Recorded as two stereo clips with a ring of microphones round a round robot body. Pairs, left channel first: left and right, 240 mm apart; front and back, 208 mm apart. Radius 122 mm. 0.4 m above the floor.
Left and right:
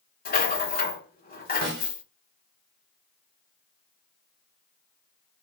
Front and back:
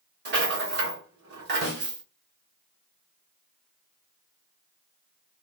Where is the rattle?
145° left, 1.4 m.